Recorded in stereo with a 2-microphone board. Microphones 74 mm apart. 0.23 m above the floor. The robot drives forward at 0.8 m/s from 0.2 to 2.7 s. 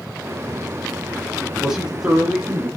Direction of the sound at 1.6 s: 10° right (ahead or behind).